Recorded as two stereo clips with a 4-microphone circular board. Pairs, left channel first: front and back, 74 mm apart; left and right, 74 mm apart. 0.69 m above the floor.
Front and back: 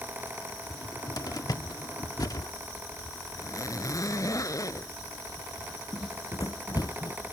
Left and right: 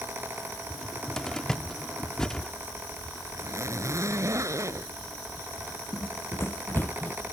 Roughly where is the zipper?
Ahead right.